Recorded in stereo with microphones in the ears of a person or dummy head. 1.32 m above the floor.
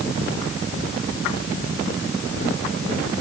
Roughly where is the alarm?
No alarm in this recording.